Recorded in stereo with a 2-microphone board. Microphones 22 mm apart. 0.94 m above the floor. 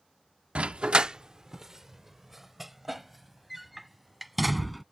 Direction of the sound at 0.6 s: 55° right (ahead or behind).